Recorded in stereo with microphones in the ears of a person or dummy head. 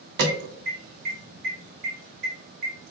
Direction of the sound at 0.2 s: 60° right (ahead or behind).